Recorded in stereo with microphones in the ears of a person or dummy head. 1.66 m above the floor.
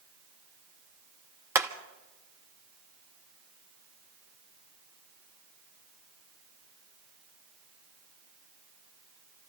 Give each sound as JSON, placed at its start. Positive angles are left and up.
{"t": 1.6, "sound": "hammering", "side_deg": -10, "distance_m": 0.8}